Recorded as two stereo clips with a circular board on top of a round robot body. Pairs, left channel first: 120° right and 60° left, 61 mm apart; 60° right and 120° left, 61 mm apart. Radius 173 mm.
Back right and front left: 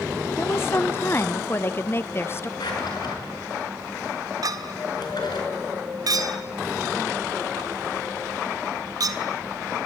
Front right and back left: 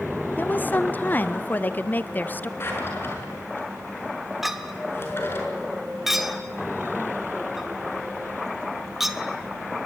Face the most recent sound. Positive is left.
turn(degrees=35)